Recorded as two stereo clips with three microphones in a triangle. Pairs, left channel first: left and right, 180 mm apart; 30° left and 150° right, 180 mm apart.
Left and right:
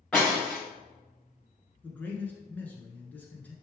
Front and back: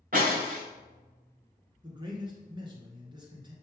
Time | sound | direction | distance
0.1 | breaking glass | 175° left | 2.5 m
1.8 | a man speaking | 165° left | 1.5 m